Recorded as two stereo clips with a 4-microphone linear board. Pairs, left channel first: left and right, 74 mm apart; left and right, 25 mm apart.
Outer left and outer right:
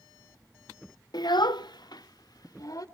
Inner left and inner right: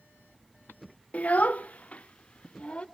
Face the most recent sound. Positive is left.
turn(degrees=55)  # may be behind; listen again after turning